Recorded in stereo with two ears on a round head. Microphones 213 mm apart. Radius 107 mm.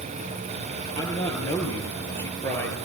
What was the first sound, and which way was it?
A man speaking, 10° left (ahead or behind).